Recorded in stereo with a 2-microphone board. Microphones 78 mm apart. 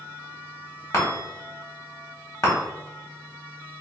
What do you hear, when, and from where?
0.9 s a chime: 45° left (ahead or behind), 1.3 m